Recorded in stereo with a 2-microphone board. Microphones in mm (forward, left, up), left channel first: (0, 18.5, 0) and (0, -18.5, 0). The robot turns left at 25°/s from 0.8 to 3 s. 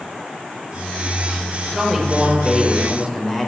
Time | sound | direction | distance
1.7 | a man speaking | 165° right | 1.2 m